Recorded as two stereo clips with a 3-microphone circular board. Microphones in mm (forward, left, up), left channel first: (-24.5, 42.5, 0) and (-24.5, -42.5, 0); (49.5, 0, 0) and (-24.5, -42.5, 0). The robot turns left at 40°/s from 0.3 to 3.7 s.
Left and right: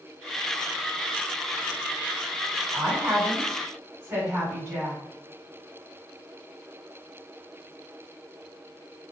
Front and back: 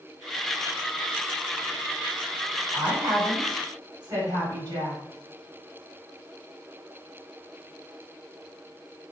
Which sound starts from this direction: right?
A woman speaking, at 2.7 s.